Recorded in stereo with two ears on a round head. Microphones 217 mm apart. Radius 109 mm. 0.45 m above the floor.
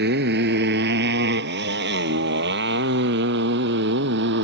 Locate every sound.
0.0 s a motorcycle: 45° right (ahead or behind); by 4.4 s 50° right (ahead or behind)